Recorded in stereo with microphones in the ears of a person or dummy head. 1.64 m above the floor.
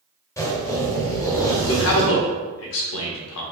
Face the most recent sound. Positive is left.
turn(degrees=75)  # may be behind; listen again after turning